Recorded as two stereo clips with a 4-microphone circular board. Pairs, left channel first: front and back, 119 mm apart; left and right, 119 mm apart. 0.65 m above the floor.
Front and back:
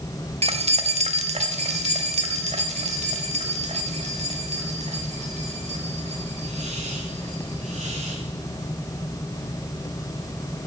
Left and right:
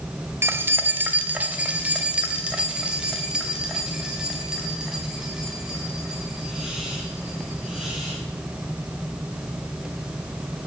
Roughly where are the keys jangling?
Behind.